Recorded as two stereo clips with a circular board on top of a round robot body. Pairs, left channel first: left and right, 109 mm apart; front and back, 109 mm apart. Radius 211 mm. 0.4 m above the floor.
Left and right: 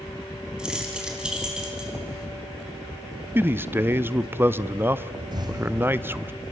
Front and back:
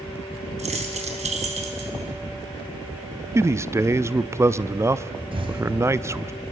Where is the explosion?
140° right, 3 m.